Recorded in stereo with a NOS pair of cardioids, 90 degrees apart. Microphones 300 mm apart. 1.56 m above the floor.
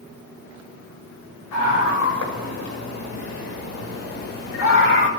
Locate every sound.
1.5 s a scream: 70° left, 6.5 m; by 5.1 s 40° left, 5.5 m